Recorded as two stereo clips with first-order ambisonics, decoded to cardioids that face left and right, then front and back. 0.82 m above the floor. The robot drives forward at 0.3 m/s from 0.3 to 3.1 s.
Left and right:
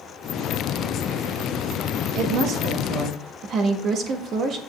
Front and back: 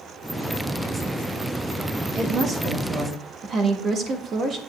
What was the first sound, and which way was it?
A woman speaking, 115° right.